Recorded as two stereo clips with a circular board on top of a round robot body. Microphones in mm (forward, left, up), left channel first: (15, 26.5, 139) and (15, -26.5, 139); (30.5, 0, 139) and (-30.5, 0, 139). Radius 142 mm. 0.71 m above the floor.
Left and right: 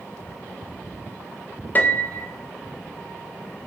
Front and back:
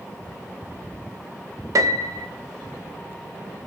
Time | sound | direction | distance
1.8 | a piano | 145° left | 0.8 m